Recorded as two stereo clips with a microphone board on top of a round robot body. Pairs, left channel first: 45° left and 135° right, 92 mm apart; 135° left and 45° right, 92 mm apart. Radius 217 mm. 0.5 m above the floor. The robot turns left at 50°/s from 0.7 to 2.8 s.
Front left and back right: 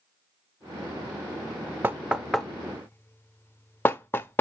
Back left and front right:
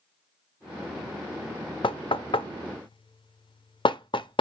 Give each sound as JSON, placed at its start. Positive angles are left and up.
{"t": 1.8, "sound": "knocking", "azimuth_deg": 160, "distance_m": 0.6}